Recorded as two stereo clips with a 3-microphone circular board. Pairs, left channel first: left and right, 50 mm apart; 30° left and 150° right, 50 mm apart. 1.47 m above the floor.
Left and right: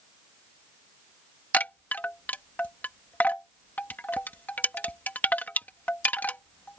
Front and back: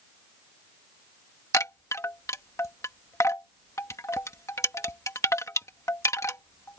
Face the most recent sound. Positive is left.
turn(degrees=35)